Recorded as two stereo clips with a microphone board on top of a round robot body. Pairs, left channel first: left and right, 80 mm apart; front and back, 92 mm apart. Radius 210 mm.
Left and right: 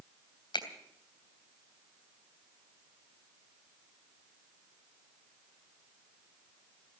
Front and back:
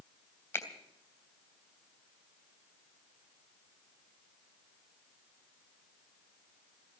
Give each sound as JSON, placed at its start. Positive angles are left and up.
{"t": 0.5, "sound": "a finger snap", "azimuth_deg": 65, "distance_m": 3.0}